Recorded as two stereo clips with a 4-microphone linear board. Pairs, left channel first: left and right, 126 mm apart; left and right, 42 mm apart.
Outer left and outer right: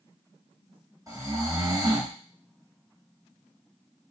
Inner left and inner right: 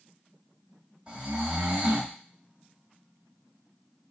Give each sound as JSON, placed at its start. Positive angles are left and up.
{"t": 1.1, "sound": "snoring", "side_deg": -30, "distance_m": 1.0}